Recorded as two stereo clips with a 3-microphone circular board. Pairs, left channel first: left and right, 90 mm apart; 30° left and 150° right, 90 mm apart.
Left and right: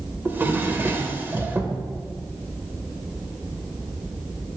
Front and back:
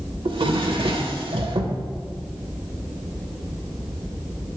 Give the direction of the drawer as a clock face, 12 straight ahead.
5 o'clock.